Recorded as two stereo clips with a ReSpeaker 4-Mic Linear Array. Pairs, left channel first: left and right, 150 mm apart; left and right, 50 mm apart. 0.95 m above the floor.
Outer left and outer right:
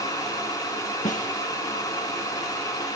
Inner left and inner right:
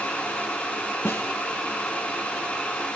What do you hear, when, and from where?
1.1 s a snare drum: 60° left (ahead or behind), 5.5 m